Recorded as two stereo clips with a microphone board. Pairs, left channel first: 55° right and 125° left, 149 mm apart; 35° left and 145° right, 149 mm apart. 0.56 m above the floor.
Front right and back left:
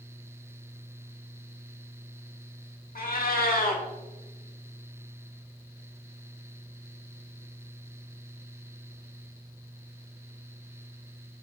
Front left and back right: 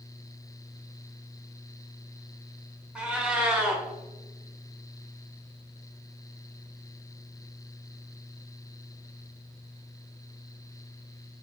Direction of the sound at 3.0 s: 60° right.